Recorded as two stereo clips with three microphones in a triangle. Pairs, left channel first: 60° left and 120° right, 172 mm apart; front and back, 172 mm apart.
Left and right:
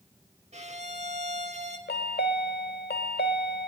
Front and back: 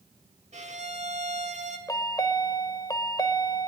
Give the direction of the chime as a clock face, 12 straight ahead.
10 o'clock.